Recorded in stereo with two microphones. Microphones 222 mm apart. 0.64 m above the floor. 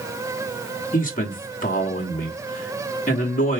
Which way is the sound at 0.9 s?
40° left (ahead or behind).